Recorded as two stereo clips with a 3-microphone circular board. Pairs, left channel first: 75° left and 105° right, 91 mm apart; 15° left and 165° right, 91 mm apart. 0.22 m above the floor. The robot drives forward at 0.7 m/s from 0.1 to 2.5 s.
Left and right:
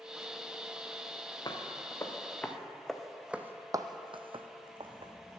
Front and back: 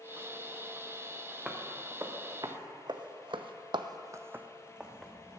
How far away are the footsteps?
About 1.3 m.